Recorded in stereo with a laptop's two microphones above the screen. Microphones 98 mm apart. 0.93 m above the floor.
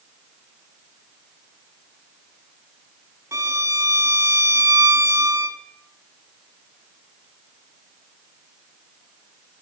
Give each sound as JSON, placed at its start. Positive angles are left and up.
{"t": 3.3, "sound": "a violin", "side_deg": -30, "distance_m": 1.8}